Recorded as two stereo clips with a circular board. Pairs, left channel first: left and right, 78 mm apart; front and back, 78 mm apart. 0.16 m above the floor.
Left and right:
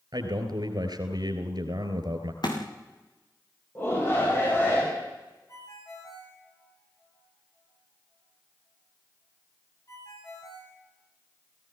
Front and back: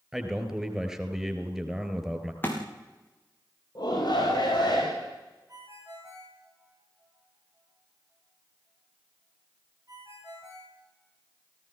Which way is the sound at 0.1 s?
95° right.